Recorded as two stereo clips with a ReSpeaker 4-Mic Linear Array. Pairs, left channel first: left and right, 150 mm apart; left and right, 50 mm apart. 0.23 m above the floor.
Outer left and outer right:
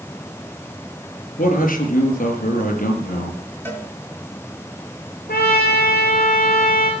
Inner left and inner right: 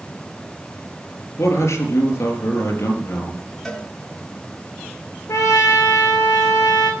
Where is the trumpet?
85° left, 4 m.